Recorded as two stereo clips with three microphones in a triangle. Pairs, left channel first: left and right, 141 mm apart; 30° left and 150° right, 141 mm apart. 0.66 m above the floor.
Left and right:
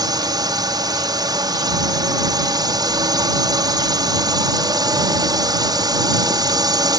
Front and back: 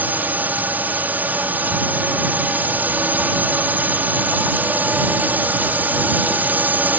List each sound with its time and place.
0.0 s a drone: 85° right